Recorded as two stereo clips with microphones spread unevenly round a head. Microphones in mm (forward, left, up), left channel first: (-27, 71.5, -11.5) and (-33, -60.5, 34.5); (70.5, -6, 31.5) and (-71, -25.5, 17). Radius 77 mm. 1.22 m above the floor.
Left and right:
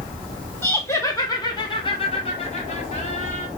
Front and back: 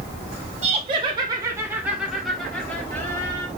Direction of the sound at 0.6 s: 150° left.